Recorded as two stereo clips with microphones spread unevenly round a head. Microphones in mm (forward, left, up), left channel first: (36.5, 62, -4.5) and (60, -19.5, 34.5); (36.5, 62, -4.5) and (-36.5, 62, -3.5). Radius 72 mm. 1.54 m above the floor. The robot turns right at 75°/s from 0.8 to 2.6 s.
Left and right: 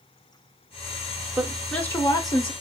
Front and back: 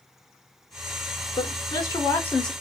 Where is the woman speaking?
Straight ahead, 1.2 m; by 2.5 s 85° left, 1.2 m.